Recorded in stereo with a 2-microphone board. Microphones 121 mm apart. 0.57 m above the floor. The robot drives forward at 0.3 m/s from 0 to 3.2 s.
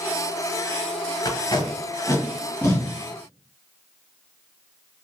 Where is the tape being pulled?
35° left (ahead or behind), 0.7 m; by 2.9 s 20° left (ahead or behind), 1.1 m.